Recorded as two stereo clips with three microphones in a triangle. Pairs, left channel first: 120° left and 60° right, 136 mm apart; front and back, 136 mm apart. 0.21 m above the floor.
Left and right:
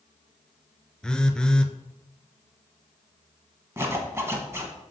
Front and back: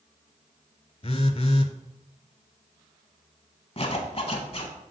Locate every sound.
1.0 s a phone buzzing: 35° left, 0.5 m
3.8 s a zipper: 5° left, 1.1 m